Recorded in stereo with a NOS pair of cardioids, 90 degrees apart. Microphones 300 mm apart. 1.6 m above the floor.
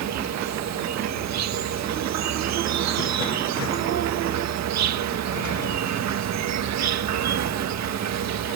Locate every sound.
0.0 s an insect: 65° right